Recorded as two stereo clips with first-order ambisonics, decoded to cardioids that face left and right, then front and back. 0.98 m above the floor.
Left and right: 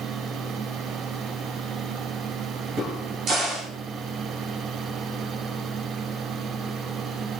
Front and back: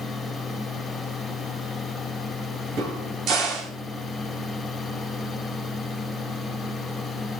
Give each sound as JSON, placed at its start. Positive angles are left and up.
{"t": 2.8, "sound": "a crack", "azimuth_deg": -140, "distance_m": 4.0}